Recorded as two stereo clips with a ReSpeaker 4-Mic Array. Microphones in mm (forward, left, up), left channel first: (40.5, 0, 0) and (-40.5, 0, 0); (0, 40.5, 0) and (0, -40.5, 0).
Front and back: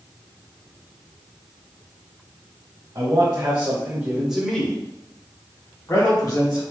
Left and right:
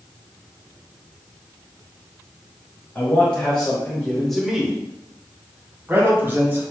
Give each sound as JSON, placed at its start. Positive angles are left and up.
{"t": 3.0, "sound": "a man speaking", "azimuth_deg": 145, "distance_m": 1.8}